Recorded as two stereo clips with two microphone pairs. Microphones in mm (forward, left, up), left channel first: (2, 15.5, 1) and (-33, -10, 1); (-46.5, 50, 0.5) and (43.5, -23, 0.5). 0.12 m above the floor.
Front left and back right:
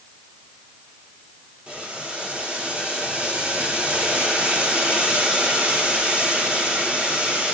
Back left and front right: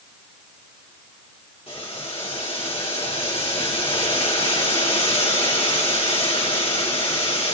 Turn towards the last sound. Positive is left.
turn(degrees=160)